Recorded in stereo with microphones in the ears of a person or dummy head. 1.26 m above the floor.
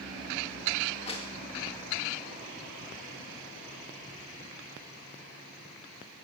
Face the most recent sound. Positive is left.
turn(degrees=30)  # may be behind; listen again after turning